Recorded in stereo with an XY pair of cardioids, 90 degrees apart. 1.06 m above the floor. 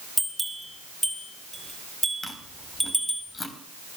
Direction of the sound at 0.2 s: 5° left.